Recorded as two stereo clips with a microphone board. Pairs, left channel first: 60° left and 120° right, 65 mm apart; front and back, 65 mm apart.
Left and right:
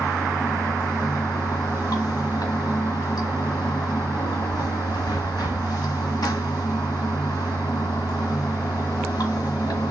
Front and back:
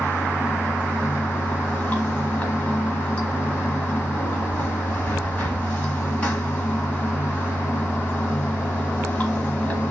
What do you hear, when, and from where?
0.0 s running water: 70° left, 1.4 m